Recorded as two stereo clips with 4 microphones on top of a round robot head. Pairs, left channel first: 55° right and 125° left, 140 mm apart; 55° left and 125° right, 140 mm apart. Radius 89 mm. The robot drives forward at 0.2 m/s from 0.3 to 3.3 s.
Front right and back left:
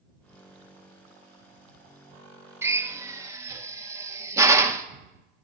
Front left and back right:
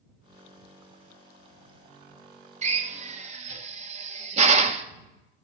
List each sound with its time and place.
2.6 s a drill: 160° right, 0.9 m; by 4.8 s 165° right, 1.0 m